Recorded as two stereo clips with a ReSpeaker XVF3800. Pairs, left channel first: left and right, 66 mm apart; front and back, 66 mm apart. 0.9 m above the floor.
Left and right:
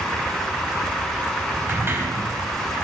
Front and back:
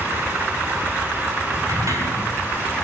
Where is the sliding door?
145° right, 3.5 m.